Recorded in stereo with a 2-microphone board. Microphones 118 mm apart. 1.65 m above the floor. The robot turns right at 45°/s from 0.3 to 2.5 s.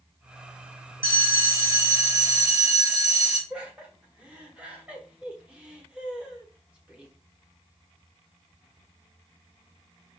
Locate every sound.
1.0 s a bell: 20° right (ahead or behind), 1.6 m
3.5 s laughter: 10° right (ahead or behind), 1.1 m